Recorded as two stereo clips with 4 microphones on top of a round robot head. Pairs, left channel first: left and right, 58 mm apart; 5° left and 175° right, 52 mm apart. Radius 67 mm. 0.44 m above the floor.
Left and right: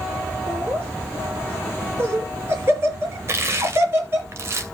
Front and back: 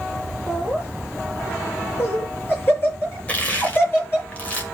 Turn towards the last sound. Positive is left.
turn(degrees=-55)